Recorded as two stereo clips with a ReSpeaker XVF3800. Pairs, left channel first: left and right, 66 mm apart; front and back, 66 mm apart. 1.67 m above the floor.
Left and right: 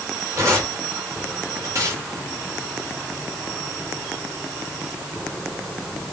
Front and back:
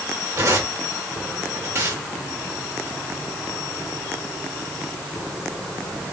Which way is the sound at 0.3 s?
135° right.